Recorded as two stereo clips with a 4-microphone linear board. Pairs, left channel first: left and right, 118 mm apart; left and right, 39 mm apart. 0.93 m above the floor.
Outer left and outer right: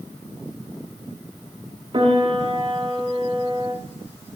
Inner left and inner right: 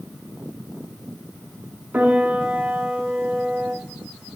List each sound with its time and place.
1.9 s a piano: 45° right (ahead or behind), 1.0 m